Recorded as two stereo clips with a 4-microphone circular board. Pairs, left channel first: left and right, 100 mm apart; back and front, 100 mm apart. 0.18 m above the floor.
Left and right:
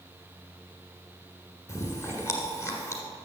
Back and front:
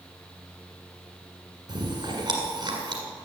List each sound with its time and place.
1.7 s chewing: 35° left, 1.6 m